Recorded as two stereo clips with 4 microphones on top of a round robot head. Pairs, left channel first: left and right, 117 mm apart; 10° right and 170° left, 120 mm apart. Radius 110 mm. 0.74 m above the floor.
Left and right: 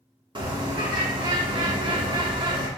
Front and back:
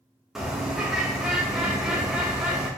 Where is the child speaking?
I don't hear a child speaking.